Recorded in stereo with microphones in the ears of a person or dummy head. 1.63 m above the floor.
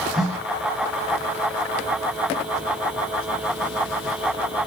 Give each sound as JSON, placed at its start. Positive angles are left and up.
{"t": 0.1, "sound": "a snare drum", "side_deg": 0, "distance_m": 4.0}